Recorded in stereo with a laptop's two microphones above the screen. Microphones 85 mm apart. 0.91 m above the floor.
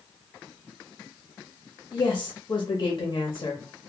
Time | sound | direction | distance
1.9 | a woman speaking | 45° left (ahead or behind) | 0.7 m